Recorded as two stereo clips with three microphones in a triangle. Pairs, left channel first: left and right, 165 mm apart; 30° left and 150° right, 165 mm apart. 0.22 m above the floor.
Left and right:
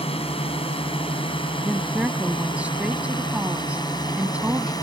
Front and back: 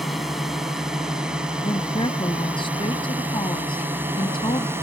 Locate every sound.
0.0 s a drone: 120° left; by 4.8 s 145° left
1.6 s a woman speaking: 10° right